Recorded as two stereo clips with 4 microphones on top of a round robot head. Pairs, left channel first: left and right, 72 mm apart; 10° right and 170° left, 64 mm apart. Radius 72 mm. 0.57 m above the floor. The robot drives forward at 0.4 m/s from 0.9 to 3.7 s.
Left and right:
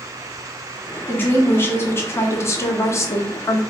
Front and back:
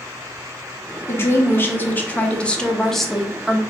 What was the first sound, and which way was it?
A woman speaking, 35° left.